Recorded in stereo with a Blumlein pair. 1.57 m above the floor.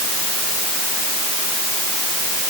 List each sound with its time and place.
Only background noise.